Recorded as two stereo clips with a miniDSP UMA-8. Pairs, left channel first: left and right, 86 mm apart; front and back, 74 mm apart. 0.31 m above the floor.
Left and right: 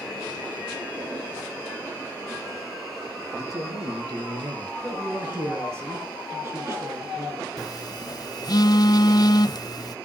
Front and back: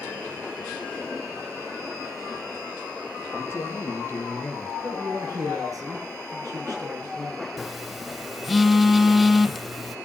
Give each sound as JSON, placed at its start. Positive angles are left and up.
{"t": 3.3, "sound": "a man speaking", "azimuth_deg": -55, "distance_m": 5.0}
{"t": 4.8, "sound": "a man speaking", "azimuth_deg": -150, "distance_m": 4.5}
{"t": 7.6, "sound": "a phone buzzing", "azimuth_deg": 90, "distance_m": 0.6}